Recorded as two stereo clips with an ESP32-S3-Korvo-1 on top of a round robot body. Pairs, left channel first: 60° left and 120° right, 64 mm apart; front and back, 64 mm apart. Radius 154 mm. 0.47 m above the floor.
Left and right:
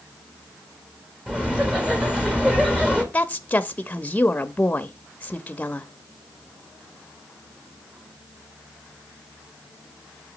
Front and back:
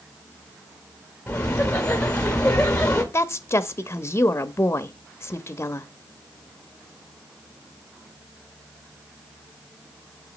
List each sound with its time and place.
1.3 s laughter: 55° right, 1.3 m
3.1 s a woman speaking: 10° left, 0.8 m